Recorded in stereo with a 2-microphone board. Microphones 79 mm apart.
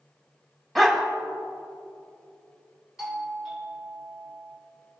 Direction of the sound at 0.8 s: Centre (ahead or behind).